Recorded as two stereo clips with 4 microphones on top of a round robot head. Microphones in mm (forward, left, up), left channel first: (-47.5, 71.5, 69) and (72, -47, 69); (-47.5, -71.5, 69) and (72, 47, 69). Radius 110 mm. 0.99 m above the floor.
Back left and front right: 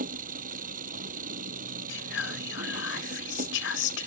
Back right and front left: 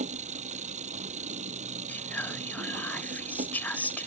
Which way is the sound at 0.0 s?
5° right.